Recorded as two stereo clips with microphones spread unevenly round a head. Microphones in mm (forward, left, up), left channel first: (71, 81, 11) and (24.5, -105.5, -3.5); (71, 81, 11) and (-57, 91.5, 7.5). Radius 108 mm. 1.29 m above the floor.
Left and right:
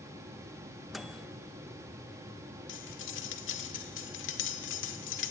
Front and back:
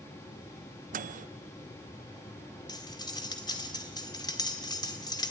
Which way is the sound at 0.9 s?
165° left.